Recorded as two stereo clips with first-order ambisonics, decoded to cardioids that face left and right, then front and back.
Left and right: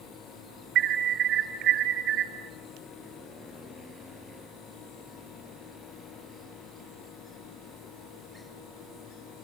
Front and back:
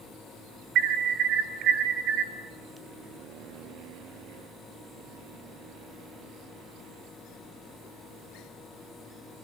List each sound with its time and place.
0.8 s an alarm: 135° right, 2.0 m